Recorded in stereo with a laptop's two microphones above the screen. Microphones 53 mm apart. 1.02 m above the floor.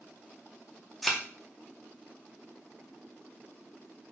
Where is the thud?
Centre (ahead or behind), 0.6 m.